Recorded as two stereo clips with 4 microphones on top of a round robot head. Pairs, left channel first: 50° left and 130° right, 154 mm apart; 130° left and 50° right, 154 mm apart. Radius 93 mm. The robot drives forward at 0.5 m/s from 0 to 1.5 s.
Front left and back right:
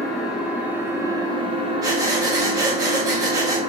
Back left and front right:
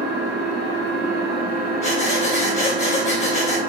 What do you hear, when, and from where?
0.0 s an engine running: 35° right, 1.2 m; by 3.7 s 75° right, 0.8 m
1.8 s breathing: 165° left, 1.3 m